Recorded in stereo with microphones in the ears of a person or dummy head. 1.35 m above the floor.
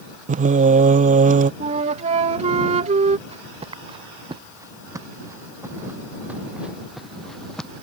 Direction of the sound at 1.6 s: 35° right (ahead or behind).